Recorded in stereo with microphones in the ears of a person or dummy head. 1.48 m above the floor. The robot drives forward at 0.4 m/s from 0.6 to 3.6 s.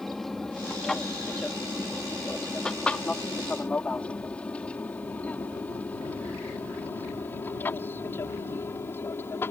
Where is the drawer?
I don't hear a drawer.